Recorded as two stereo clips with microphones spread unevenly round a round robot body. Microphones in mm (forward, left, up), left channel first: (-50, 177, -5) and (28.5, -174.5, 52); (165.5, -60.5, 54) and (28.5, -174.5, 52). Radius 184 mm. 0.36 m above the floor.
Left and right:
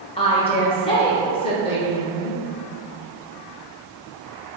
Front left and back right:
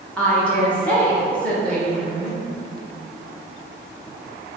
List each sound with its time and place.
0.2 s a woman speaking: 115° left, 0.8 m